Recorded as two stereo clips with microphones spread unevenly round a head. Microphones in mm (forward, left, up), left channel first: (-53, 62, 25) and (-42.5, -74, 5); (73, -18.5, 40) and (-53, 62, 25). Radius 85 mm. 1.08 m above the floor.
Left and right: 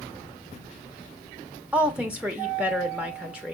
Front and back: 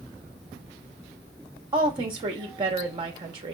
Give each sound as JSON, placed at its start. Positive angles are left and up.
{"t": 1.7, "sound": "a woman speaking", "azimuth_deg": -160, "distance_m": 1.1}